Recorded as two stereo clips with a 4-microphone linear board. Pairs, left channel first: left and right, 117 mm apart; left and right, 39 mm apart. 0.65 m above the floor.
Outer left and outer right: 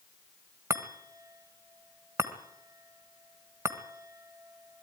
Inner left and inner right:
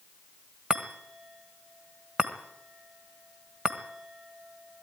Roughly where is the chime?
Right.